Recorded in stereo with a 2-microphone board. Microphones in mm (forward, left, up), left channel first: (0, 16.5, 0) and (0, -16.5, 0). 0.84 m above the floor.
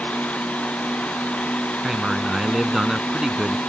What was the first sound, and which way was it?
A man speaking, 20° right (ahead or behind).